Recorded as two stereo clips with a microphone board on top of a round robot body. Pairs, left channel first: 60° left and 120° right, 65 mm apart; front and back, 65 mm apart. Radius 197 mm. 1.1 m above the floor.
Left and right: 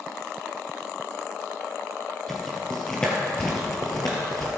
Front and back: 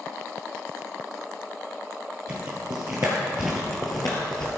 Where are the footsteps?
145° left, 1.9 m; by 4.5 s straight ahead, 1.3 m.